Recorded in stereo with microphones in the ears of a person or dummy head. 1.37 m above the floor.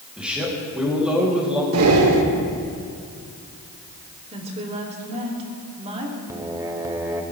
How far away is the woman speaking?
About 3 m.